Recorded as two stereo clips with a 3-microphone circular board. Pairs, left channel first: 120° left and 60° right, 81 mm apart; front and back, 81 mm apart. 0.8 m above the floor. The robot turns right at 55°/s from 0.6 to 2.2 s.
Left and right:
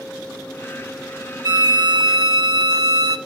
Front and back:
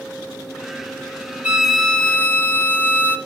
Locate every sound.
1.4 s a violin: 105° right, 1.5 m; by 3.2 s 65° right, 1.5 m